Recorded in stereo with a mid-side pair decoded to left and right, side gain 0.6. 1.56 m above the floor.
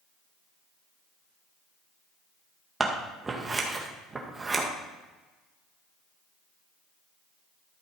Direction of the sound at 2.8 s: 20° right.